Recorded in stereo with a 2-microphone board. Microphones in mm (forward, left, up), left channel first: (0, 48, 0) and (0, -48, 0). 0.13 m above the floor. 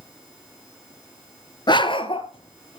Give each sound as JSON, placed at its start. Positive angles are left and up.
{"t": 1.7, "sound": "a dog barking", "side_deg": 50, "distance_m": 0.9}